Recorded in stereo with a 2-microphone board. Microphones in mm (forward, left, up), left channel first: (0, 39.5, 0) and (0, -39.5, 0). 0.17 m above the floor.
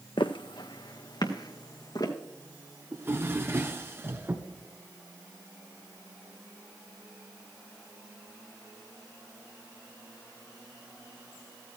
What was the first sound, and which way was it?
Footsteps, 85° left.